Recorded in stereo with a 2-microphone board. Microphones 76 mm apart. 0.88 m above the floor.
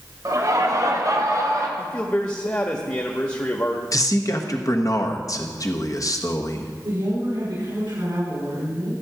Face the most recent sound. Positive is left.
turn(degrees=-60)  # may be behind; listen again after turning